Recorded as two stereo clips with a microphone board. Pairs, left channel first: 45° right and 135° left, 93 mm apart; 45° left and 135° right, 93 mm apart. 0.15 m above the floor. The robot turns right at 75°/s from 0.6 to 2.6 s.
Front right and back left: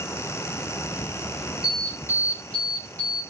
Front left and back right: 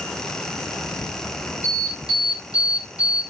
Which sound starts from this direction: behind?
An alarm, at 1.6 s.